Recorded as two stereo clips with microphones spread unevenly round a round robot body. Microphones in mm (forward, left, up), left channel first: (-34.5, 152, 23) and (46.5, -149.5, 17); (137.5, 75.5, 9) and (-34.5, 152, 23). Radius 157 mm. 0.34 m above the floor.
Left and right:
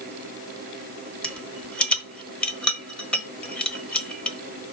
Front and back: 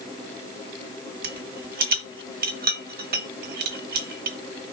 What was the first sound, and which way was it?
A rattle, 170° right.